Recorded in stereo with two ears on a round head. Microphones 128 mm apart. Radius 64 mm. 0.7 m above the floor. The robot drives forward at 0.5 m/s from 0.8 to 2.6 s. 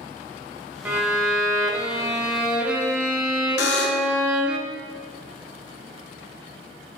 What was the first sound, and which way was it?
A violin, 10° right (ahead or behind).